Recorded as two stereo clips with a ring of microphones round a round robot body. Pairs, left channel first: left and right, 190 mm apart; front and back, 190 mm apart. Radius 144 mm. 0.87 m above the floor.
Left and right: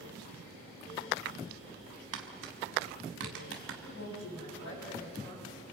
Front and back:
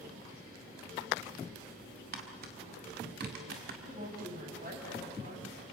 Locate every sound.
2.1 s tapping: 125° right, 1.6 m
3.8 s a woman speaking: 135° left, 7.5 m